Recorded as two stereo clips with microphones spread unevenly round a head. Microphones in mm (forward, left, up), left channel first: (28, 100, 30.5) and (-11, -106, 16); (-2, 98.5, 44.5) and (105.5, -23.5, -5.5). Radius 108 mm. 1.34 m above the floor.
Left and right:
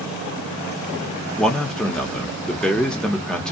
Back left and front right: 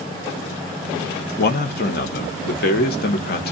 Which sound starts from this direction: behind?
A man speaking, at 1.4 s.